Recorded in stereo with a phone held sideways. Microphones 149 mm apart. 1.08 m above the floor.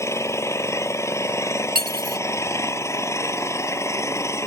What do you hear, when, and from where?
0.0 s an engine running: 20° left (ahead or behind)
1.8 s cutlery clinking: 75° right (ahead or behind)